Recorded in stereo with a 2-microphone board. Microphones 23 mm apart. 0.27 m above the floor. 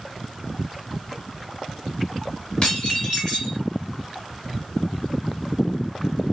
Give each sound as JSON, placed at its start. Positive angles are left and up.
{"t": 2.6, "sound": "dishes clattering", "side_deg": 40, "distance_m": 1.7}